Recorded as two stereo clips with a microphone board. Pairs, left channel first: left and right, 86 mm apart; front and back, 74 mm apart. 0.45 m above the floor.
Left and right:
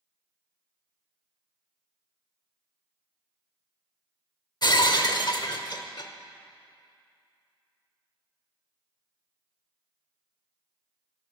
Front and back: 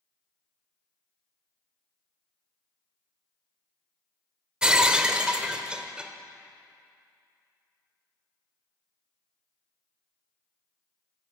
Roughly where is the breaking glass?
Left.